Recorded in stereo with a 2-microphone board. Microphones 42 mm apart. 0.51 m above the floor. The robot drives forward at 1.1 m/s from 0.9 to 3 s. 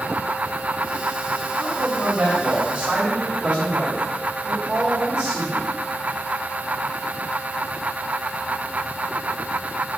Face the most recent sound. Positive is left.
turn(degrees=-25)  # may be behind; listen again after turning